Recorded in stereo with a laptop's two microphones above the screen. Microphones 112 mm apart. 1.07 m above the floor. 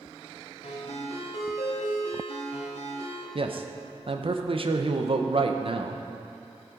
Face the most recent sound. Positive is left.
turn(degrees=-50)  # may be behind; listen again after turning